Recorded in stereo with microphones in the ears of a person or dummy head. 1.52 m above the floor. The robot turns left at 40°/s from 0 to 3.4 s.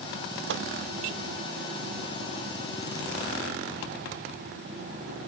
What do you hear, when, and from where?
0.5 s a microwave: 65° right (ahead or behind), 0.5 m; by 0.7 s 70° right (ahead or behind), 0.5 m